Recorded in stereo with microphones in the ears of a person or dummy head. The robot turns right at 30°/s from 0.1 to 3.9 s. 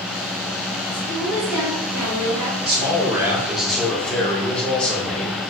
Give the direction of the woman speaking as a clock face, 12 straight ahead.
5 o'clock.